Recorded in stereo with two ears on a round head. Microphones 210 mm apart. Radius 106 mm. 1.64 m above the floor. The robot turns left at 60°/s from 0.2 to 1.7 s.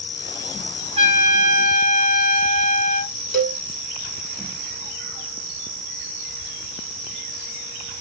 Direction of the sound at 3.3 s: Centre (ahead or behind).